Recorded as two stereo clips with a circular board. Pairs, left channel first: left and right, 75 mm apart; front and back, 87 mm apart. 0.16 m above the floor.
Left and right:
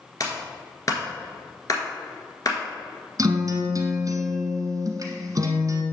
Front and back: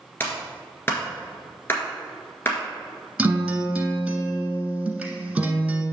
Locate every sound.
0.2 s a clap: 60° left, 1.6 m
3.2 s a guitar: 105° right, 1.2 m